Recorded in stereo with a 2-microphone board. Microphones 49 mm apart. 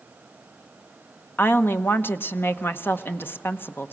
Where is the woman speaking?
55° left (ahead or behind), 1.1 m.